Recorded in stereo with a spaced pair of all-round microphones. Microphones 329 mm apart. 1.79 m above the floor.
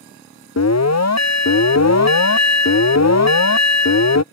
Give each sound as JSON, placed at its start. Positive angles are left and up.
{"t": 0.6, "sound": "an alarm", "side_deg": 55}